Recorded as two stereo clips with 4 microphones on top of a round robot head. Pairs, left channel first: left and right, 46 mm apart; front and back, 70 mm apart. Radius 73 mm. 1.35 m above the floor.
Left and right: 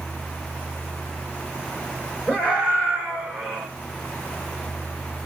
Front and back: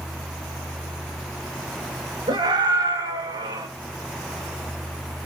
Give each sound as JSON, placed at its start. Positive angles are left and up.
{"t": 2.3, "sound": "a scream", "azimuth_deg": 160, "distance_m": 5.5}